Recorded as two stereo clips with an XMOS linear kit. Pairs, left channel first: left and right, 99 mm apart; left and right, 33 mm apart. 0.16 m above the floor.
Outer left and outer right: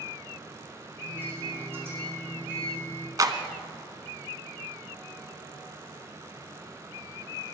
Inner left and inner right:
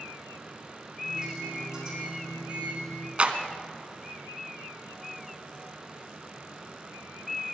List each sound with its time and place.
1.0 s a microwave: 20° right (ahead or behind), 6 m
3.2 s a clap: 40° right (ahead or behind), 1.0 m